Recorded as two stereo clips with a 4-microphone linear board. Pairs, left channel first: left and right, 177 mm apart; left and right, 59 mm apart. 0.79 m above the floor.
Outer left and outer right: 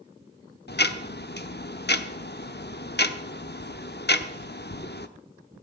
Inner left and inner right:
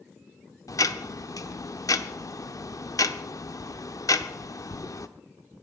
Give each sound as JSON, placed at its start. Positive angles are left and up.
{"t": 0.7, "sound": "ticking", "side_deg": 70, "distance_m": 0.8}